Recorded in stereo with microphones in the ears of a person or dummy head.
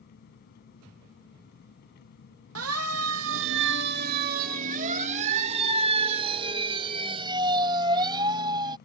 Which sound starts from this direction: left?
An engine running, at 0.0 s.